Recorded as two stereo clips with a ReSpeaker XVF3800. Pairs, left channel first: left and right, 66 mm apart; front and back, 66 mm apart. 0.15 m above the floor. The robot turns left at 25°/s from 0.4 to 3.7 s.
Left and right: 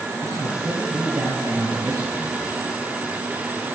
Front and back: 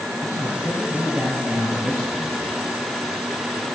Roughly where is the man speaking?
Right.